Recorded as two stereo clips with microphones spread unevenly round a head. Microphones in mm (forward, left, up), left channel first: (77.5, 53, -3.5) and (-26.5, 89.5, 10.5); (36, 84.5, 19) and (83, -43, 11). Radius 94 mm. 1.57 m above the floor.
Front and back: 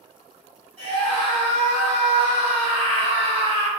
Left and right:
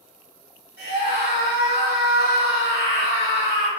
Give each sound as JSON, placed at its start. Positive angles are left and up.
{"t": 0.8, "sound": "a scream", "azimuth_deg": -105, "distance_m": 1.3}